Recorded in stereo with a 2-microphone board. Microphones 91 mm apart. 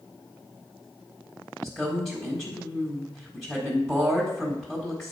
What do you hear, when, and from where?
1.6 s a woman speaking: centre (ahead or behind), 1.5 m